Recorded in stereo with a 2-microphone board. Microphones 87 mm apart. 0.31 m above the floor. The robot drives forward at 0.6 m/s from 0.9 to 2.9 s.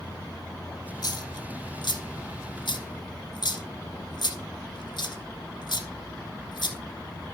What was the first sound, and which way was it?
A dropped coin, 55° left (ahead or behind).